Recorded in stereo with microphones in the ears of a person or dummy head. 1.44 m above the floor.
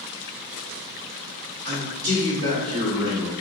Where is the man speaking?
45° right (ahead or behind), 1.6 m; by 3.3 s 15° right (ahead or behind), 1.9 m.